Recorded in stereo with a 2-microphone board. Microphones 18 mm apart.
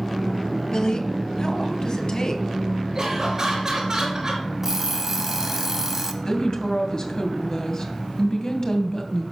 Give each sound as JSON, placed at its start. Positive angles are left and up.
{"t": 0.7, "sound": "a woman speaking", "side_deg": 45, "distance_m": 1.3}
{"t": 3.0, "sound": "laughter", "side_deg": -35, "distance_m": 4.0}
{"t": 4.6, "sound": "an alarm clock", "side_deg": -20, "distance_m": 0.9}
{"t": 6.2, "sound": "a woman speaking", "side_deg": 40, "distance_m": 1.9}